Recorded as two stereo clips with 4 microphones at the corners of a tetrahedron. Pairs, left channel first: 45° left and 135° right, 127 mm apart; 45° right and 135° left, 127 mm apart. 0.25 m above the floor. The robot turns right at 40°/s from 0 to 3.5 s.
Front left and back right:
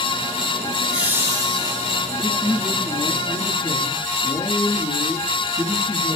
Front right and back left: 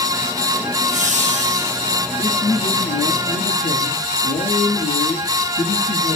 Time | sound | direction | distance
0.7 | laughter | 135° left | 5 m
2.2 | a man speaking | 70° right | 4 m